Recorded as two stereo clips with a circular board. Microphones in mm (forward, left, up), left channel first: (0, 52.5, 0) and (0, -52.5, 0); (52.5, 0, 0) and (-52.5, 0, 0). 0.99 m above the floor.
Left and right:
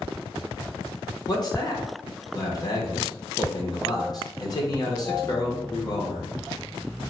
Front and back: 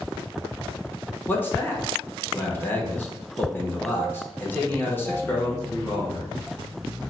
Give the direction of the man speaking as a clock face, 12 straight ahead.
10 o'clock.